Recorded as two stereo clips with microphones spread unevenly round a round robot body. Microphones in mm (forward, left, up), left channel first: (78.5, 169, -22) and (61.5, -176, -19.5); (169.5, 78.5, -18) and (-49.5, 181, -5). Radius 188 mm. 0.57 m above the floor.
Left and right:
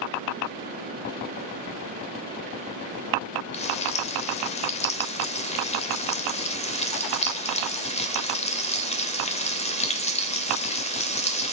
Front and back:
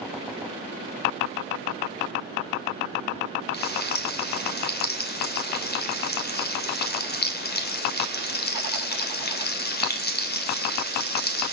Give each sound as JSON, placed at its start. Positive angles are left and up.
{"t": 3.5, "sound": "frying", "azimuth_deg": 15, "distance_m": 2.5}